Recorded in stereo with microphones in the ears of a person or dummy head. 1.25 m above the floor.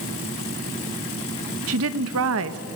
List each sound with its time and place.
1.7 s a woman speaking: 75° right (ahead or behind), 1.4 m